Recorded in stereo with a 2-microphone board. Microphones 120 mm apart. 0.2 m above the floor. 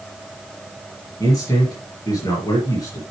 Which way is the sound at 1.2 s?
30° left (ahead or behind).